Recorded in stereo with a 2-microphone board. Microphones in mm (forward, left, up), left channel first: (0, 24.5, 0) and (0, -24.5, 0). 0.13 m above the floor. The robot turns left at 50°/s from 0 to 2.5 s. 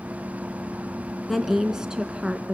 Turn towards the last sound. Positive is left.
turn(degrees=-25)  # may be behind; listen again after turning